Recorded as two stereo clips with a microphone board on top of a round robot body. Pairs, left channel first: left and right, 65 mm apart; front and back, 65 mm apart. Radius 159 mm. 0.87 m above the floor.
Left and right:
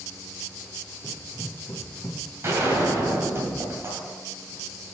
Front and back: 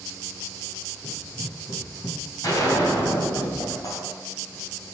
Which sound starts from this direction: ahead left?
Running footsteps, at 1.0 s.